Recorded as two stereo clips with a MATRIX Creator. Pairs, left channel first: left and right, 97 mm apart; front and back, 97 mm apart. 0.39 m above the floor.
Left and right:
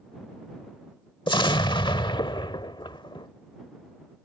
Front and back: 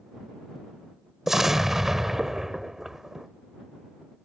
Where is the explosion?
95° left.